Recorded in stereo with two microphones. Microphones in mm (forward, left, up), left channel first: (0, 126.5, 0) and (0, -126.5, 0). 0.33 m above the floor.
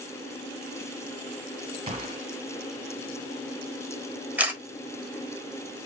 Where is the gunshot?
25° right (ahead or behind), 1.9 m.